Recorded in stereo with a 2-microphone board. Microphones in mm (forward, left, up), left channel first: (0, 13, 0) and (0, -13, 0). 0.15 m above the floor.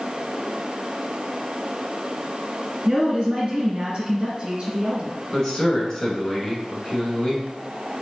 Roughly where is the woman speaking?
Right.